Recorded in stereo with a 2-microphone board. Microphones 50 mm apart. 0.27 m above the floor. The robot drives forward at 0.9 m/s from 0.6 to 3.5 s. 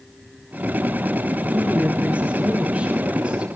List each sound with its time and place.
1.5 s a woman speaking: 30° right (ahead or behind), 3.5 m; by 3.5 s 20° right (ahead or behind), 5 m